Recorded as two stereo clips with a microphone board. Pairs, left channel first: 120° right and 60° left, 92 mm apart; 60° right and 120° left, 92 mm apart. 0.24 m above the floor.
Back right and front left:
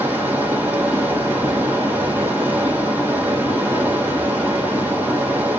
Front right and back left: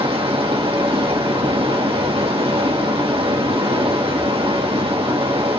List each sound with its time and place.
0.0 s running water: 130° left, 4.5 m